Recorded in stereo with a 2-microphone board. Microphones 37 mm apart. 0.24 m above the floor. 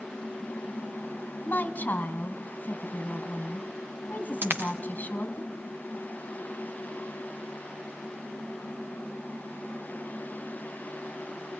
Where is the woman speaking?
50° left (ahead or behind), 1.8 m.